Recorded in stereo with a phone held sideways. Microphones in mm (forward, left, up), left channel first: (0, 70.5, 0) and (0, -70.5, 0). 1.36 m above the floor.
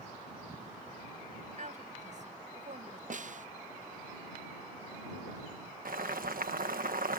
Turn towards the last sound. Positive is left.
turn(degrees=-85)